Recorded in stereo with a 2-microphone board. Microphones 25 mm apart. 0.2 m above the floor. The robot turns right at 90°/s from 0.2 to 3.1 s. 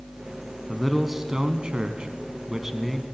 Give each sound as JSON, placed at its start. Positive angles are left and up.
{"t": 0.7, "sound": "a man speaking", "azimuth_deg": 160, "distance_m": 1.7}